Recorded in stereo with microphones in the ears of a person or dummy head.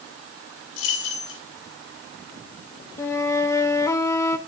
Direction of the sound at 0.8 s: 80° left.